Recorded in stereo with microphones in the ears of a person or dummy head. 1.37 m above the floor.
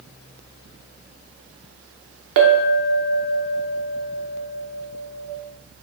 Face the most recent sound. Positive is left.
turn(degrees=-65)  # may be behind; listen again after turning